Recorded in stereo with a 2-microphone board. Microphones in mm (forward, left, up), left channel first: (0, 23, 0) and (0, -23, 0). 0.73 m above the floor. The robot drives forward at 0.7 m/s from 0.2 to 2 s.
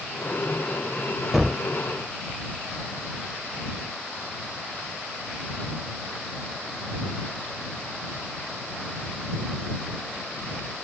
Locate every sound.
1.3 s a gunshot: 5° right (ahead or behind), 0.5 m; by 1.6 s centre (ahead or behind), 0.6 m